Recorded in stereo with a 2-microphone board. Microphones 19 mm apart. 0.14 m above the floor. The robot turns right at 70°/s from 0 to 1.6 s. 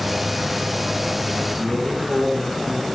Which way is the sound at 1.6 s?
Centre (ahead or behind).